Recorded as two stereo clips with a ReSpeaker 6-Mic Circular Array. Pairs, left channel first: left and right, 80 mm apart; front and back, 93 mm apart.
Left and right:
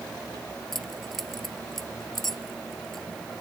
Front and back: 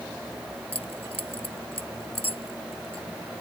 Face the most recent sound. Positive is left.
turn(degrees=5)